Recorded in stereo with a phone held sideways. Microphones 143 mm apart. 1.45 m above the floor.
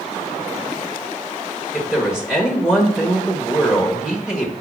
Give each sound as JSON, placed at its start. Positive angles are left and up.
{"t": 1.7, "sound": "a woman speaking", "side_deg": -5, "distance_m": 1.5}